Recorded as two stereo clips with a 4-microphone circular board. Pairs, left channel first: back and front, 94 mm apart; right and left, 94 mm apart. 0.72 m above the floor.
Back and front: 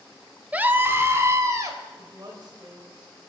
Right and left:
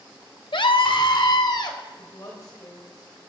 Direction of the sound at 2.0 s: 40° right.